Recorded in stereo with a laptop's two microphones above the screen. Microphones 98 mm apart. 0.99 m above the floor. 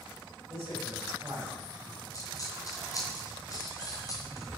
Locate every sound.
0.5 s a man speaking: 25° right (ahead or behind), 7 m; by 2.0 s 15° right (ahead or behind), 5 m
2.1 s a dropped coin: 40° left (ahead or behind), 3 m